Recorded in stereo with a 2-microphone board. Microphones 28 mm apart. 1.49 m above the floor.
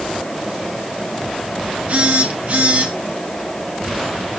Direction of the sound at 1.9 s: 60° right (ahead or behind).